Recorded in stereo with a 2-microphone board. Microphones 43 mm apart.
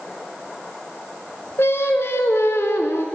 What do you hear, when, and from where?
1.6 s singing: 75° left (ahead or behind), 0.5 m